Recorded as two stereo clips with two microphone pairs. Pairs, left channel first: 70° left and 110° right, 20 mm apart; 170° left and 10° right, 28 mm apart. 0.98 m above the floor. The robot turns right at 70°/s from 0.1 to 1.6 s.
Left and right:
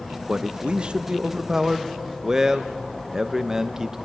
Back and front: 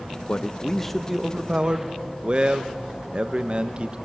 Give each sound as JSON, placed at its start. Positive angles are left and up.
{"t": 0.3, "sound": "a man speaking", "azimuth_deg": -145, "distance_m": 0.5}